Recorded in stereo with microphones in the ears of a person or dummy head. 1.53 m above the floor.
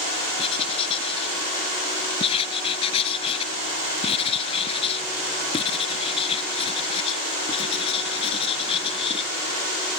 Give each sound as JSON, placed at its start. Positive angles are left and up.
{"t": 0.4, "sound": "writing", "side_deg": 30}